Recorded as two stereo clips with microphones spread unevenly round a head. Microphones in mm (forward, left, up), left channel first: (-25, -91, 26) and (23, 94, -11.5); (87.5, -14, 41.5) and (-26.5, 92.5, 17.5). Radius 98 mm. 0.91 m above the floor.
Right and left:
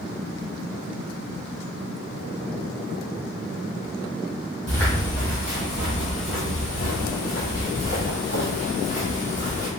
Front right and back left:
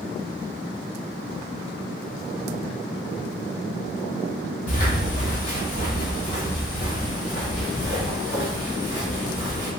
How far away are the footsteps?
About 1.8 m.